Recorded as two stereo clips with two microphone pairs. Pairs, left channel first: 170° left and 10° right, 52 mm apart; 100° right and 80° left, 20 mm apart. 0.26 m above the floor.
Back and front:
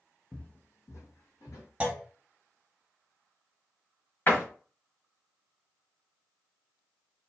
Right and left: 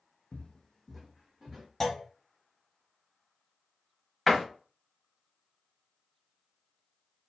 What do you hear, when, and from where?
0.3 s footsteps: 110° right, 0.6 m; by 1.7 s 160° left, 1.5 m
1.8 s a clunk: 50° right, 0.6 m
4.3 s a door slam: straight behind, 1.0 m